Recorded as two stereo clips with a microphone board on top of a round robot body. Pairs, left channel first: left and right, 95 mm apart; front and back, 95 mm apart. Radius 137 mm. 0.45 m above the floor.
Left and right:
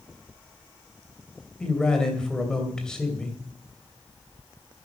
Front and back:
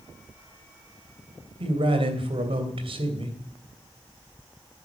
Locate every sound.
1.6 s a man speaking: 175° left, 3 m